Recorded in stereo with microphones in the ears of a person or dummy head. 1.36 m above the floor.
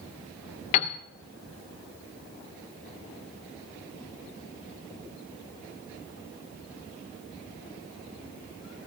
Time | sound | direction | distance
0.7 | a piano | 30° left (ahead or behind) | 0.6 m